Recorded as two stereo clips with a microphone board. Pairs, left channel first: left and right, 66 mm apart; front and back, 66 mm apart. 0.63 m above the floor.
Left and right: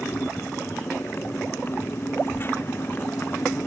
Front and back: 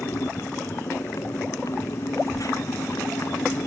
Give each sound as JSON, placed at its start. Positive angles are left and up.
{"t": 0.0, "sound": "a motorcycle", "azimuth_deg": 35}